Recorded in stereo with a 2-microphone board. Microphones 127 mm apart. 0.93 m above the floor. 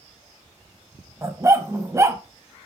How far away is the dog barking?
About 1.2 m.